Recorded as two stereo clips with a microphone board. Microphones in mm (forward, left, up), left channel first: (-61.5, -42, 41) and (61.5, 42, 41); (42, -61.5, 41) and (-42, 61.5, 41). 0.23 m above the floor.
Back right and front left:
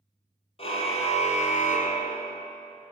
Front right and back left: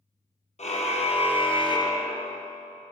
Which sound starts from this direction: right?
A car horn, at 0.6 s.